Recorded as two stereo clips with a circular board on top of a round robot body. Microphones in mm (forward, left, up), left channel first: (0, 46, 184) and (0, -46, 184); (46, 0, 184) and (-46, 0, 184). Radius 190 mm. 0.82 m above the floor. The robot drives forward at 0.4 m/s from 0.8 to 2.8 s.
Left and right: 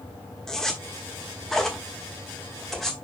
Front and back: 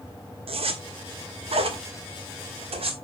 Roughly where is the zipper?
Behind.